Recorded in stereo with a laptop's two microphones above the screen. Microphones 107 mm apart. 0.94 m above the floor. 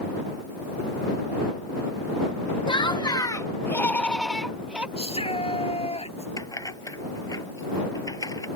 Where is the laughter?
50° left (ahead or behind); by 4.9 s 15° right (ahead or behind).